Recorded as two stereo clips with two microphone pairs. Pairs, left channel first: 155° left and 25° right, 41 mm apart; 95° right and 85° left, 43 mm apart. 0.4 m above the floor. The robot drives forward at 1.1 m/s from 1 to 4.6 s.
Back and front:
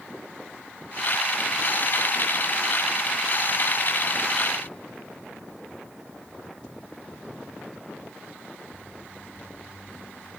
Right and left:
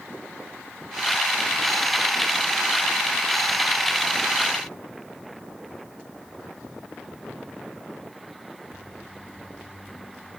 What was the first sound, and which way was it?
Only background noise.